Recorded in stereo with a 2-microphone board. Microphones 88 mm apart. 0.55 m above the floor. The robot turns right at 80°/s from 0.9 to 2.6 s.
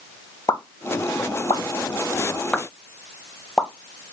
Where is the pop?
35° left (ahead or behind), 0.6 m; by 3.7 s 5° left (ahead or behind), 0.6 m.